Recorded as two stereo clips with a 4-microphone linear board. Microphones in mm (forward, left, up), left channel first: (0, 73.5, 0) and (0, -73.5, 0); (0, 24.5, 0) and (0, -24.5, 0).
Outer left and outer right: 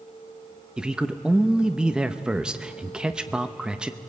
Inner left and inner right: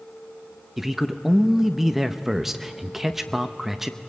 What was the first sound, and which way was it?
A man speaking, 5° right (ahead or behind).